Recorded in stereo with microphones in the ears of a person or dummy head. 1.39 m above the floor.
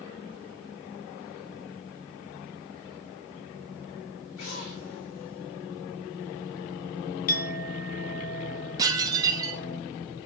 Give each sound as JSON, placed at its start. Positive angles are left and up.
{"t": 4.4, "sound": "an explosion", "side_deg": 85, "distance_m": 4.5}
{"t": 7.3, "sound": "a clink", "side_deg": 55, "distance_m": 1.3}
{"t": 8.8, "sound": "dishes clattering", "side_deg": -15, "distance_m": 1.3}